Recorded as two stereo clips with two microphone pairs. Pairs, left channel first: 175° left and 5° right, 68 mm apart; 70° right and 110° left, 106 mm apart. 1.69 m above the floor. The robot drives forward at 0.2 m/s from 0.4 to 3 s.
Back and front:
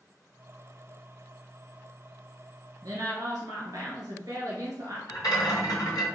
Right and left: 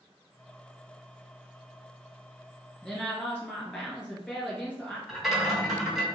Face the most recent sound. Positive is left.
turn(degrees=-165)